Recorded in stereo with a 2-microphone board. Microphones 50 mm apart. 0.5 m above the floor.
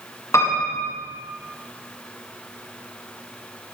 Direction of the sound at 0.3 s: 75° left (ahead or behind).